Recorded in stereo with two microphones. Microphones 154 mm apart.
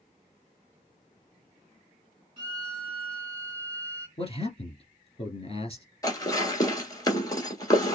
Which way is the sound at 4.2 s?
40° left (ahead or behind).